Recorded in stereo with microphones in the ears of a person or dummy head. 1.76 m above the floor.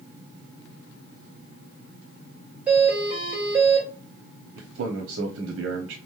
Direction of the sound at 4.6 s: 75° right (ahead or behind).